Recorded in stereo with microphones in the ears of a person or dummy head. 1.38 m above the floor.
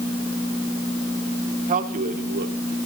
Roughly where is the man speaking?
Right.